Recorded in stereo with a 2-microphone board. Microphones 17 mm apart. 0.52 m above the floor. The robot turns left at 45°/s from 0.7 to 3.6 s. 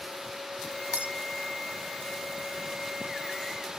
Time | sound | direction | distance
0.9 | breaking glass | 80° right | ?